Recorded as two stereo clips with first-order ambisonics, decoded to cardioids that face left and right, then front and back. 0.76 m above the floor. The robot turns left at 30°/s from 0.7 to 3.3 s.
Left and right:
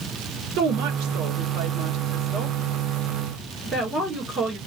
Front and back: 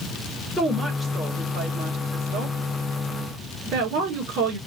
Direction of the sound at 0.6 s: 80° right.